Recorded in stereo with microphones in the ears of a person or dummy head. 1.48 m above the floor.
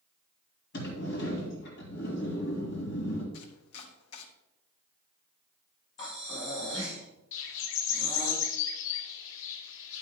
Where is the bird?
80° left, 1.3 m.